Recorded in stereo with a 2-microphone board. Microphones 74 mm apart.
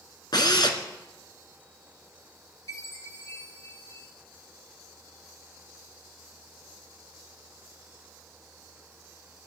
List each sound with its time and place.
0.3 s a drill: 70° left (ahead or behind), 1.9 m
2.7 s a chime: 45° left (ahead or behind), 4.5 m